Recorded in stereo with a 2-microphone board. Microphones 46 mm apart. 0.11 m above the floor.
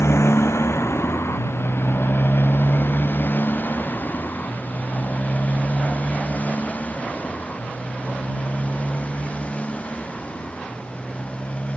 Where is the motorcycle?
80° left; by 11.8 s 25° left (ahead or behind).